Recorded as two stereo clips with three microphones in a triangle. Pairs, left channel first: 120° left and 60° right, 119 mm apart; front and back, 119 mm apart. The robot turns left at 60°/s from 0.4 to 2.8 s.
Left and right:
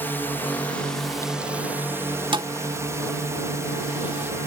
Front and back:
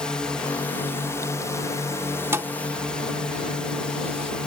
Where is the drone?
75° left; by 4.5 s 70° right.